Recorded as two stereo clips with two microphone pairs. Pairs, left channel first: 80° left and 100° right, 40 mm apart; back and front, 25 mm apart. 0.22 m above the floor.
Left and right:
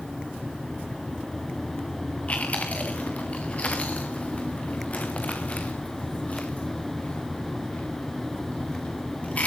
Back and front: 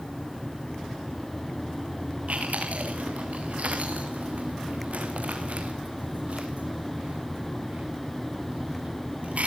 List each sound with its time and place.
2.3 s chewing: 25° left, 4 m